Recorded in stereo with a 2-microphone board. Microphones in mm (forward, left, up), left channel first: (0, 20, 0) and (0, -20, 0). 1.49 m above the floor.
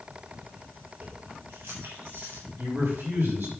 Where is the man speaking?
60° right (ahead or behind), 6 m.